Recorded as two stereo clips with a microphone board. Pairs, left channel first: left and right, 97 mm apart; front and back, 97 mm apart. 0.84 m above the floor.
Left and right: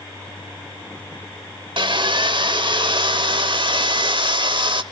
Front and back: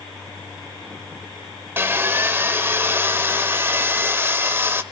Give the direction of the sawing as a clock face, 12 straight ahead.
4 o'clock.